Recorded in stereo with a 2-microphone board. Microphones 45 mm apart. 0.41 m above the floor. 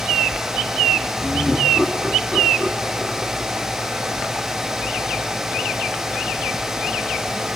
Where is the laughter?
20° left (ahead or behind), 4 m.